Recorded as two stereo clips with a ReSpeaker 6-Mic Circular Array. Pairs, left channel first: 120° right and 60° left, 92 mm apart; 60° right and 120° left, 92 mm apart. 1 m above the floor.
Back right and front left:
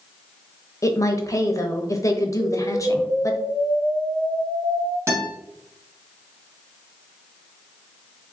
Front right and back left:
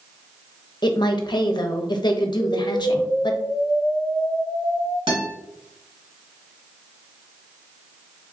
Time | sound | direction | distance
0.8 | a woman speaking | 75° right | 0.7 m
2.4 | an explosion | 45° left | 1.2 m
5.1 | a guitar | 120° left | 1.7 m